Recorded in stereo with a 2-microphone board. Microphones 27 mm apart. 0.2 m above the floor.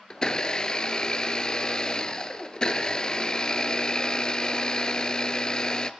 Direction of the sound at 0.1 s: 35° left (ahead or behind).